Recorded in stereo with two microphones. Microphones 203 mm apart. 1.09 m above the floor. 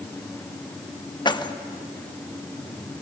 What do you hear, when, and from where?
1.2 s keys jangling: 25° left (ahead or behind), 0.8 m